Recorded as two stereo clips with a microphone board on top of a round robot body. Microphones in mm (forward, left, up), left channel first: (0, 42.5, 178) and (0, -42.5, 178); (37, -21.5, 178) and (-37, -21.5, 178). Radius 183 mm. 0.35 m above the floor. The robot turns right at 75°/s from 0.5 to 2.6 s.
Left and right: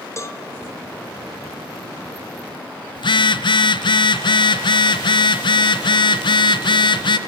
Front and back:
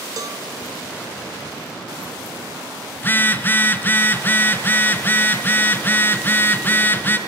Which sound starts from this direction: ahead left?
A phone buzzing, at 3.0 s.